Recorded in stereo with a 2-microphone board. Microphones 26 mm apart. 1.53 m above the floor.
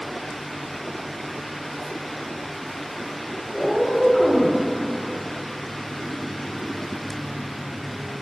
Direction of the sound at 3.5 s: 10° left (ahead or behind).